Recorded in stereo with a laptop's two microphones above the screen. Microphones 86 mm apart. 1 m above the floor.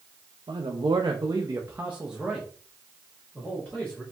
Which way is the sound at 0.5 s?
80° right.